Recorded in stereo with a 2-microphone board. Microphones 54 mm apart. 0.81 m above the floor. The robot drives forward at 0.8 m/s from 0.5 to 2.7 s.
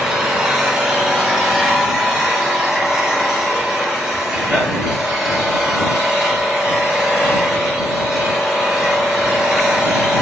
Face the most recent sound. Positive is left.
turn(degrees=0)  # may be behind; listen again after turning